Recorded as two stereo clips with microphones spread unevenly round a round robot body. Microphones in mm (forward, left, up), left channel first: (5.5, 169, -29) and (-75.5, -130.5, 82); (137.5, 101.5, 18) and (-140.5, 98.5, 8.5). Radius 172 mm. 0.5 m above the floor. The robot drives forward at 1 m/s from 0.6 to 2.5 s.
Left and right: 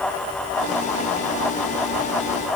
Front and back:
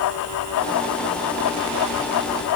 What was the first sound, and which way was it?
Only background noise.